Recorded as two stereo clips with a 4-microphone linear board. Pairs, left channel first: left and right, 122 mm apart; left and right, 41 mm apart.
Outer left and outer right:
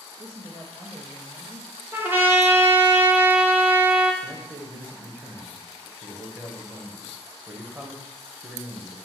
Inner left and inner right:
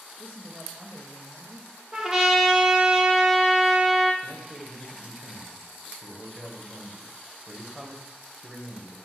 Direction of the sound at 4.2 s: 15° right (ahead or behind).